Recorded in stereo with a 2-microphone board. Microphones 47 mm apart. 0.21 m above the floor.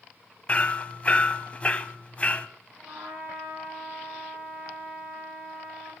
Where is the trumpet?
85° right, 5 m.